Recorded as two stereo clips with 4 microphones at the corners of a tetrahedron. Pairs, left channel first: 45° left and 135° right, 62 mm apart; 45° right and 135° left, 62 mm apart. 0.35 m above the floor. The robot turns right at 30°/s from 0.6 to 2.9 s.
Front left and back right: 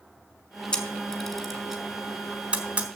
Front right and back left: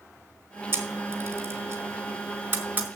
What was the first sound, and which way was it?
A camera shutter, 110° left.